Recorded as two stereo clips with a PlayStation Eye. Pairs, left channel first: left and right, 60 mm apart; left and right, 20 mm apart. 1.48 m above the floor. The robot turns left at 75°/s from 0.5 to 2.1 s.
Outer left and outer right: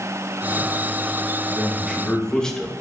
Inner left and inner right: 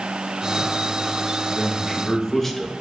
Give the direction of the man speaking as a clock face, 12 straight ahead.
5 o'clock.